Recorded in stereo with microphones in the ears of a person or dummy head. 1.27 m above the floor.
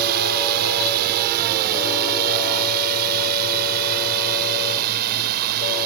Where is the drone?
55° right (ahead or behind); by 5.9 s 50° right (ahead or behind).